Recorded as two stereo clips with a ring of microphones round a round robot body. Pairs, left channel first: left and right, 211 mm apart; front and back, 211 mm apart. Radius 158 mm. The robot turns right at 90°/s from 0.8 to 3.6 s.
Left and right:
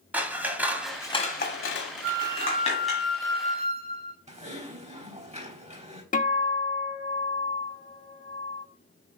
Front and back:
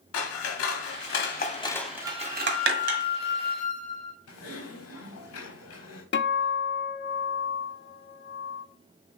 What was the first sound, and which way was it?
Scissors, 5° right.